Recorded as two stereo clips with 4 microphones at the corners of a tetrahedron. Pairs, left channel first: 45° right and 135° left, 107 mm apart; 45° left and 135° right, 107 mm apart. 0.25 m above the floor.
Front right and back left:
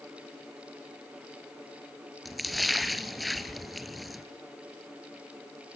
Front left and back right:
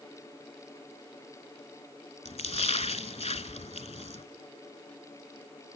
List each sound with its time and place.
2.2 s a splash: 45° left, 0.8 m